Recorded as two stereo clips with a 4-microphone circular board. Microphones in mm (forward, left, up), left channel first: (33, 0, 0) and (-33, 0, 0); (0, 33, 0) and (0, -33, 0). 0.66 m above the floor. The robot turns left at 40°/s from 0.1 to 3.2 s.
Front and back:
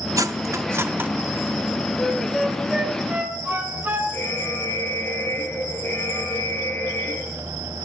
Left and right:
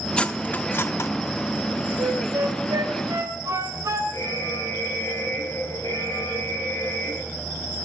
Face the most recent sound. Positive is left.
turn(degrees=55)